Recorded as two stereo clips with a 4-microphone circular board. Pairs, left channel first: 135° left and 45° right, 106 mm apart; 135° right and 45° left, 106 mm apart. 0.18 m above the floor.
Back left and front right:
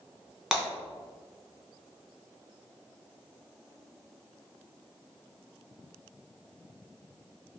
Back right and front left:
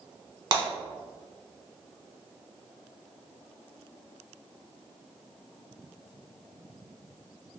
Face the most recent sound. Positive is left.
turn(degrees=40)